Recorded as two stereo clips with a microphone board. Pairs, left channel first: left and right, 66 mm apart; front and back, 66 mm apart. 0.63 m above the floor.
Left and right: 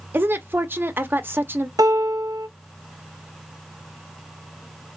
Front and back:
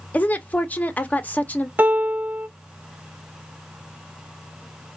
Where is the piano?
110° right, 0.5 m.